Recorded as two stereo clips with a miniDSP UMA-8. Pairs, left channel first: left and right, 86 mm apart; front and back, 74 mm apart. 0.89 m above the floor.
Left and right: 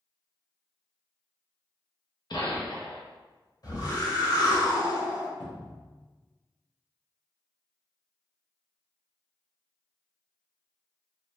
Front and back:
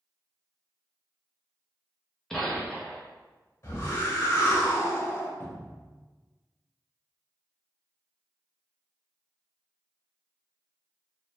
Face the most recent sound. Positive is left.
turn(degrees=65)